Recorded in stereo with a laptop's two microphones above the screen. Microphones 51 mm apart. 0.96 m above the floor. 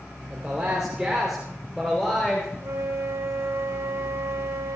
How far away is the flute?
About 4 m.